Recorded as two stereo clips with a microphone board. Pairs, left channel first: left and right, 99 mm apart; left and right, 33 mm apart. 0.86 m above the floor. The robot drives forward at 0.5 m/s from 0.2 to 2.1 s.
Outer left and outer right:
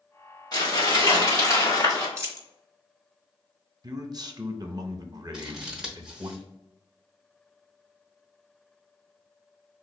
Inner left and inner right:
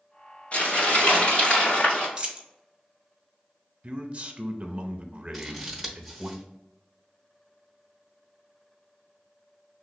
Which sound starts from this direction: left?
Crumpling, at 0.5 s.